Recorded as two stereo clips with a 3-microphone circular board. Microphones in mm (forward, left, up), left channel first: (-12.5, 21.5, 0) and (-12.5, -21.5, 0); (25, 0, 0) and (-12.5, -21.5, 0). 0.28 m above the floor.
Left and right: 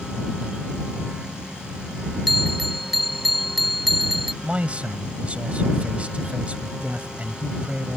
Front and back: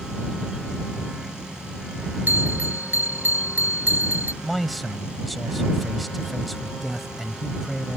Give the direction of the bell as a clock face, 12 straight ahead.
6 o'clock.